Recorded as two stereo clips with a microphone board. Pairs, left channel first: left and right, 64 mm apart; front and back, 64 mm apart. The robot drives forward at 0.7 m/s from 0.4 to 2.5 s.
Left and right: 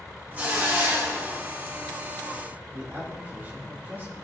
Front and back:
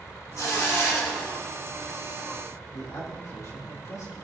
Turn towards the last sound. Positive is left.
turn(degrees=-35)